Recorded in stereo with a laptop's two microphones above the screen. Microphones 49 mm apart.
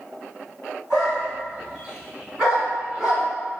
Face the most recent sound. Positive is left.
turn(degrees=-15)  # may be behind; listen again after turning